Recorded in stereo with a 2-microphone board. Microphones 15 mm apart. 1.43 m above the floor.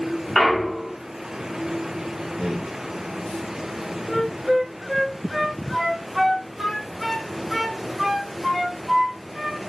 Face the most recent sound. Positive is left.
turn(degrees=-25)  # may be behind; listen again after turning